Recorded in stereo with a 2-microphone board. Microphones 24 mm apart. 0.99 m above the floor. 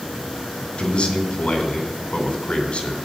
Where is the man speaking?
55° left (ahead or behind), 3.5 m.